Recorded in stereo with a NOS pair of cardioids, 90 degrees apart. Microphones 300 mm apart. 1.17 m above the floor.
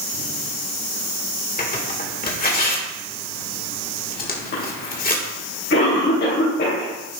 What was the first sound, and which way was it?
Tearing paper, 30° left.